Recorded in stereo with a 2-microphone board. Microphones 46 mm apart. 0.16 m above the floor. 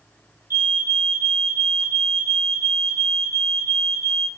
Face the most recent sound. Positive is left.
turn(degrees=-65)  # may be behind; listen again after turning